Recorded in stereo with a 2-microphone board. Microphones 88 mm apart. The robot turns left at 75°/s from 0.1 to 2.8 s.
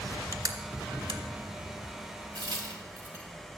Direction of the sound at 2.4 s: 55° right (ahead or behind).